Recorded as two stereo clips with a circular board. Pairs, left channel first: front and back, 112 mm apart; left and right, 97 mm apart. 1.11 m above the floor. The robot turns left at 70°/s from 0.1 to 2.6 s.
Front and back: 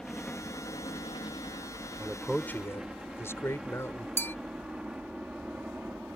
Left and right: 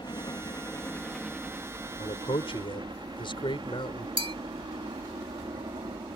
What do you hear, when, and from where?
0.0 s a helicopter: 85° left; by 6.2 s 100° right
2.0 s a man speaking: 110° left; by 4.1 s 65° left
4.2 s a bell: 70° right